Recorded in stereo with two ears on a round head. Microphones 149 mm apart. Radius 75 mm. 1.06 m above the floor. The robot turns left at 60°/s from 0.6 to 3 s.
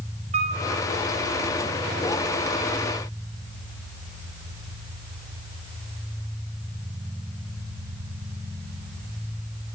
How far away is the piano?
About 5.5 m.